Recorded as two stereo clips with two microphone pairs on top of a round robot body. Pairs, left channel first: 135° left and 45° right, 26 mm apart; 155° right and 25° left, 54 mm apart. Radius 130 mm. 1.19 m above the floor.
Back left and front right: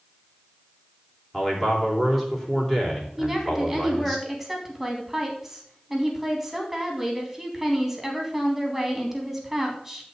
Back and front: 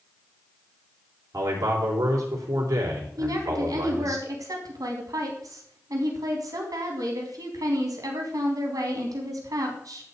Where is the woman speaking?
40° left, 3.5 m.